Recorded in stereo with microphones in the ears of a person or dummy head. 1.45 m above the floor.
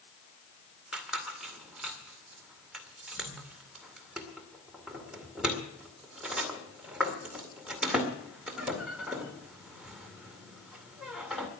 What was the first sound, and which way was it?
A squeak, 5° right (ahead or behind).